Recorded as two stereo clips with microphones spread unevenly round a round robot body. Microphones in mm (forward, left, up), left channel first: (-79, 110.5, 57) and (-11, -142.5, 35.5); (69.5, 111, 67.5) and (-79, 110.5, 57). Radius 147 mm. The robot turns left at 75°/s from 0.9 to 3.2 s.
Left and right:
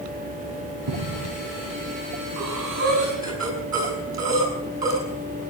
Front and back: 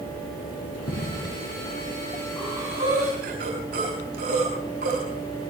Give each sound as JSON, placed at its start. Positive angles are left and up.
{"t": 0.9, "sound": "footsteps", "azimuth_deg": -40, "distance_m": 4.5}
{"t": 2.4, "sound": "breathing", "azimuth_deg": -90, "distance_m": 7.0}